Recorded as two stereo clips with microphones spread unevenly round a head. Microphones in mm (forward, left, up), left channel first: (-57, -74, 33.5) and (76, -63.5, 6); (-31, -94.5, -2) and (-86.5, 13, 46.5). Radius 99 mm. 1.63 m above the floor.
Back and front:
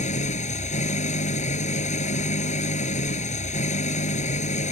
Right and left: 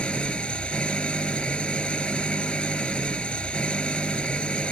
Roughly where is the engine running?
Behind right.